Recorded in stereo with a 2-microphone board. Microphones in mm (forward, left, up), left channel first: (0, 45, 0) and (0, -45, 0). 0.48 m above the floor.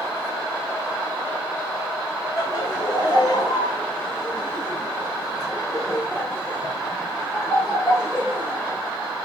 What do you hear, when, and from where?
2.4 s laughter: 50° left (ahead or behind), 2 m; by 8.8 s 10° right (ahead or behind), 1.7 m